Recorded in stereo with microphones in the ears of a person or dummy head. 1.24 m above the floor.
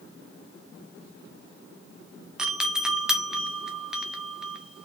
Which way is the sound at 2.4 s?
Centre (ahead or behind).